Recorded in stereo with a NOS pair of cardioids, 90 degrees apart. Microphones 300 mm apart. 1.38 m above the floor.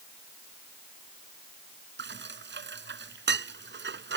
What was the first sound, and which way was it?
Dishes clattering, 35° right.